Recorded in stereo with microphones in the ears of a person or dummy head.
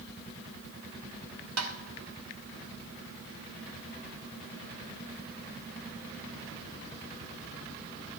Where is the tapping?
80° right, 1.7 m.